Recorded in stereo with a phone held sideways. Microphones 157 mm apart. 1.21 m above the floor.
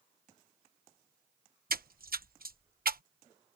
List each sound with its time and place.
1.7 s a splash: 70° right (ahead or behind)